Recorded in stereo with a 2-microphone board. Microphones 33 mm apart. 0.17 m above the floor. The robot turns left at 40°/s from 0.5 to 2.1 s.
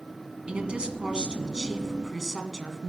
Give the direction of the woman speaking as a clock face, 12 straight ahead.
3 o'clock.